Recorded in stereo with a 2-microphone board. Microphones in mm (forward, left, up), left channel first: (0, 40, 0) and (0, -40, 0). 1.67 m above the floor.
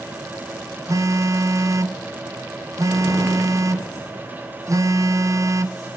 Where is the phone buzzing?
40° right (ahead or behind), 1.0 m.